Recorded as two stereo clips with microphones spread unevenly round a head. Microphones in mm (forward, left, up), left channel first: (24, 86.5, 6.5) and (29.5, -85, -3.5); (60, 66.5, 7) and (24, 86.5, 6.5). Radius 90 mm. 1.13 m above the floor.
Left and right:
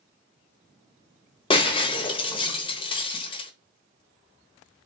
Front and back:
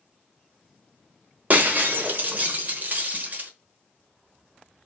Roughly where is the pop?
No pop in this recording.